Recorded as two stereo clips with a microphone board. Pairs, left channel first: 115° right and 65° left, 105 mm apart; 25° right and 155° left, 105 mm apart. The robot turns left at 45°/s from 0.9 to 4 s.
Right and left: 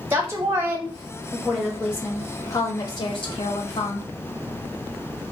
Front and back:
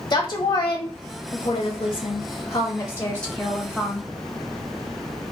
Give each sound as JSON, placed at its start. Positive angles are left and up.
{"t": 0.1, "sound": "a woman speaking", "azimuth_deg": 5, "distance_m": 0.7}